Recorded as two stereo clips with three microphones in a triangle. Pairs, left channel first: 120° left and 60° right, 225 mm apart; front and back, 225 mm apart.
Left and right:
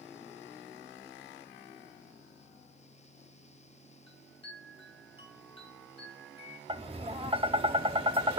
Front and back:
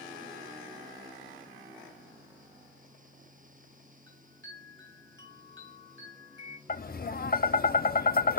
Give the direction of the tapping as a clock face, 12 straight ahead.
12 o'clock.